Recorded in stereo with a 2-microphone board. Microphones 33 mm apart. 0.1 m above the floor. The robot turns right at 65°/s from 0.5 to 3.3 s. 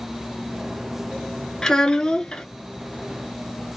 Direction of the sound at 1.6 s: 20° left (ahead or behind).